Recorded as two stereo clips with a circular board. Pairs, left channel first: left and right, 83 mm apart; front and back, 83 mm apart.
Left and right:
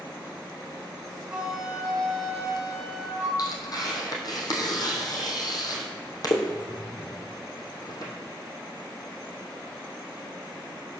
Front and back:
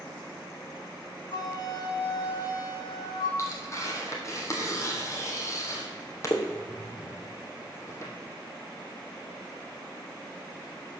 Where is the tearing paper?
50° left, 2 m.